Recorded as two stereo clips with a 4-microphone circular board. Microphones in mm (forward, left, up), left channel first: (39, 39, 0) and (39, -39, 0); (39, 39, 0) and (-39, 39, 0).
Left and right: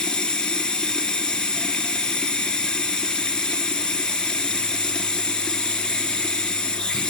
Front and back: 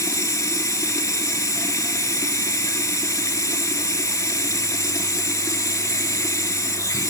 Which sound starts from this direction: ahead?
Running water, at 0.0 s.